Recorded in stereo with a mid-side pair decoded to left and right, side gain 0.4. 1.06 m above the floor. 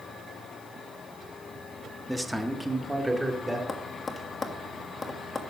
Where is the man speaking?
Straight ahead, 1.5 m; by 3.6 s 10° right, 2.5 m.